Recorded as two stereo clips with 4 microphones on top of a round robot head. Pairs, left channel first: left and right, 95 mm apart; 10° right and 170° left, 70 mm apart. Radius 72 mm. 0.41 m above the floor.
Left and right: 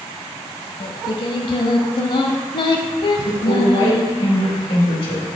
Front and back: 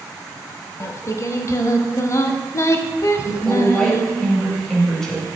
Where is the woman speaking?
75° left, 2.5 m.